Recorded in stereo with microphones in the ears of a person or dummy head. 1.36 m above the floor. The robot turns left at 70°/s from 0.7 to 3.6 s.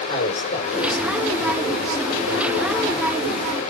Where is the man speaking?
35° left, 4 m; by 3.0 s 130° right, 4 m.